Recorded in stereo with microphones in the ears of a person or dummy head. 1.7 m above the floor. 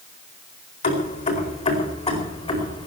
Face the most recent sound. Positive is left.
turn(degrees=20)  # may be behind; listen again after turning